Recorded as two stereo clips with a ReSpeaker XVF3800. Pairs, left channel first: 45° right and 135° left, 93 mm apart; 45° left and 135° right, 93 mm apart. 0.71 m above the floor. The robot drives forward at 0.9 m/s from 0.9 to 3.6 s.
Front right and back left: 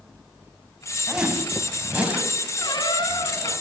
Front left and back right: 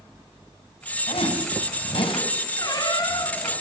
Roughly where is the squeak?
Ahead.